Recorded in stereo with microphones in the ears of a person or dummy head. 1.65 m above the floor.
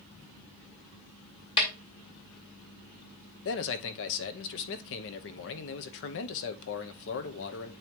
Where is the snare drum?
25° left (ahead or behind), 2 m.